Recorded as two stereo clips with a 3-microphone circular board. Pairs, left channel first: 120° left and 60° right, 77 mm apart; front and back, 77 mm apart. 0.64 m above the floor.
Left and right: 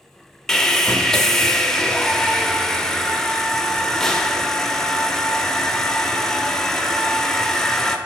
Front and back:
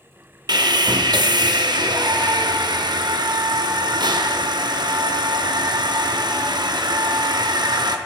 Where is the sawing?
155° right, 0.5 m.